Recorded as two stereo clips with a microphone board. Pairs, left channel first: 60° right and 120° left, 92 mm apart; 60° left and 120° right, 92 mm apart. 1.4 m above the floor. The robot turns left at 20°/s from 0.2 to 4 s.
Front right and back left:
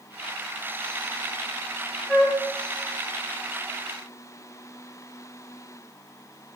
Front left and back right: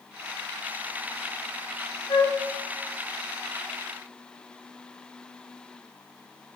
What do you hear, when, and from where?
2.1 s a flute: 35° left, 1.2 m; by 2.4 s 30° left, 1.2 m